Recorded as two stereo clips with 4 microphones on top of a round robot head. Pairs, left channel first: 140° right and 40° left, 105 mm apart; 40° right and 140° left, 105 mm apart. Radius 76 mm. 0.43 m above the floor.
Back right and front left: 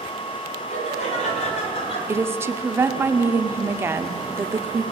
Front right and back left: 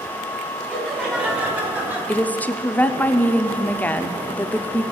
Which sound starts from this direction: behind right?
Laughter, at 0.7 s.